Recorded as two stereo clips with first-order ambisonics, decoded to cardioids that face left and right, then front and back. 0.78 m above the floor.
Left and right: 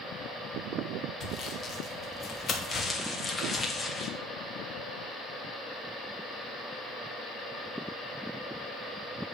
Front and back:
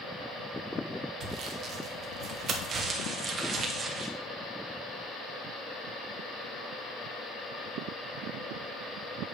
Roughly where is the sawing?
Behind left.